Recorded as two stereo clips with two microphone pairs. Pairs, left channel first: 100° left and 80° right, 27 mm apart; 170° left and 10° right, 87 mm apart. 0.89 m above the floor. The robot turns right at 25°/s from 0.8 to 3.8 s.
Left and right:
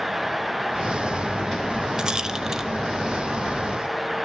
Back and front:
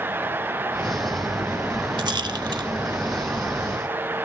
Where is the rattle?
25° right, 0.9 m; by 2.7 s 5° right, 0.9 m.